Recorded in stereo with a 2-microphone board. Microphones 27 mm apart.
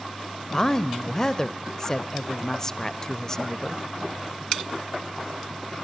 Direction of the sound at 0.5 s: 20° left (ahead or behind).